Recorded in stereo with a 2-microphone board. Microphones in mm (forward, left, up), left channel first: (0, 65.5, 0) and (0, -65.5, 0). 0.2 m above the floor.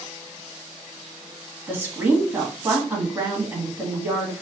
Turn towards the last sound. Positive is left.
turn(degrees=-15)  # may be behind; listen again after turning